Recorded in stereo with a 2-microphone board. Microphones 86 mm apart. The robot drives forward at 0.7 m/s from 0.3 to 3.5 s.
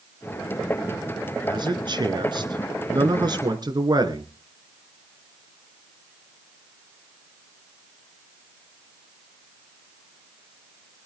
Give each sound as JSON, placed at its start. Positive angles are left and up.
{"t": 1.4, "sound": "a man speaking", "side_deg": -55, "distance_m": 2.5}